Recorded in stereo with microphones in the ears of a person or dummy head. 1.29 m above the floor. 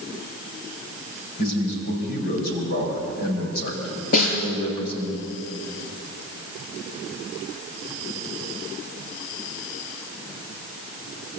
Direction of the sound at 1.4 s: 60° left (ahead or behind).